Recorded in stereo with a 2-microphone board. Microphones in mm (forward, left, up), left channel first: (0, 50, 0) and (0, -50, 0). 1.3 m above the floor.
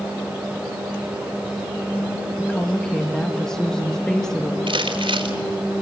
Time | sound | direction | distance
2.4 | a woman speaking | 5° left (ahead or behind) | 1.8 m
4.7 | crumpling | 65° right (ahead or behind) | 4 m